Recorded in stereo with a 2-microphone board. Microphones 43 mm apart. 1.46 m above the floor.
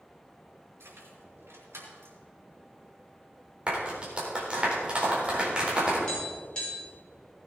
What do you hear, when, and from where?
0.8 s keys jangling: 75° right (ahead or behind), 5 m; by 2.2 s 85° right, 3.5 m
3.7 s a clap: 25° right (ahead or behind), 4 m
6.1 s tapping: 20° left (ahead or behind), 6 m